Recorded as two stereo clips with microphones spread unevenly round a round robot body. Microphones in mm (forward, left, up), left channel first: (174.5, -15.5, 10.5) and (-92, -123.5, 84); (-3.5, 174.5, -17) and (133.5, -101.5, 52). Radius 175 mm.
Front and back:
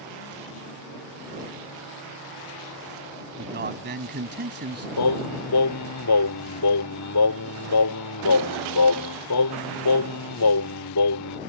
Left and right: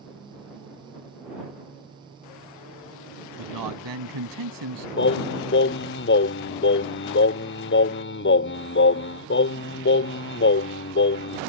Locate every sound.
3.4 s a man speaking: 105° right
5.0 s singing: 60° left